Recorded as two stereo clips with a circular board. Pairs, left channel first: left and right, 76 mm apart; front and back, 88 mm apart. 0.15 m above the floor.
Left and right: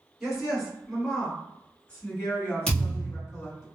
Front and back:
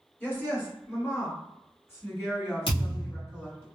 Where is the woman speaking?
25° right, 1.8 m; by 3.7 s 55° left, 2.5 m.